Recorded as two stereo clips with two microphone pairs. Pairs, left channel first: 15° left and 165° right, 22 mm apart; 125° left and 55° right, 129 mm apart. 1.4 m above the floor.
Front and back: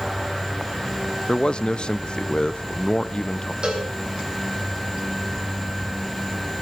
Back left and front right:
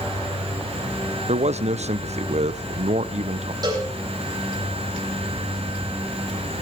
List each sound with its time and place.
1.3 s a man speaking: 25° right, 0.8 m
3.6 s a cowbell: 115° right, 7.5 m